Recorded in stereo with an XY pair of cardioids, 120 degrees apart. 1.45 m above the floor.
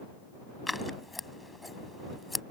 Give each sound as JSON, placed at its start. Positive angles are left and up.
{"t": 0.7, "sound": "scissors", "azimuth_deg": 10}